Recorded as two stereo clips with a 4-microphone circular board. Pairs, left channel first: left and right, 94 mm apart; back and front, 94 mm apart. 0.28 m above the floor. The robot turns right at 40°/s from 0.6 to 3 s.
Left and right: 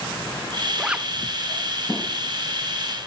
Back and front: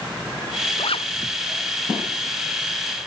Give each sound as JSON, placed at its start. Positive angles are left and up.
{"t": 0.8, "sound": "a zipper", "azimuth_deg": -175}